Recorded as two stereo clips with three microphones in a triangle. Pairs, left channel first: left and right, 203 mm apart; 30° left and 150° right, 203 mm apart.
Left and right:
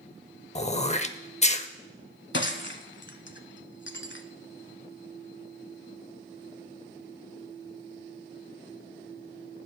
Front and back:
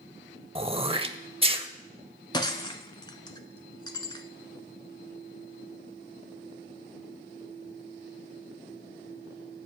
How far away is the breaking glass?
About 0.7 m.